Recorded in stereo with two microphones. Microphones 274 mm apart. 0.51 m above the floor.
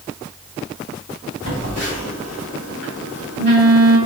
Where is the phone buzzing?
55° right (ahead or behind), 2 m.